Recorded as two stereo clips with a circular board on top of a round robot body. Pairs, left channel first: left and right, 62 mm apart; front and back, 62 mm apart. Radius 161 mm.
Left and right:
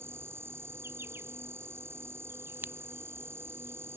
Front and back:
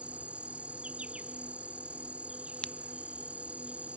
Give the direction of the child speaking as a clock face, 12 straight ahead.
I don't hear a child speaking.